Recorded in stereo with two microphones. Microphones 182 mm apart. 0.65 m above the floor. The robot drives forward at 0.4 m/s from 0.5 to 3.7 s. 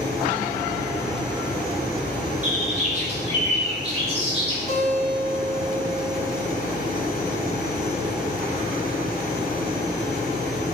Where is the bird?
45° right (ahead or behind), 0.8 m; by 4.6 s 35° right (ahead or behind), 1.0 m.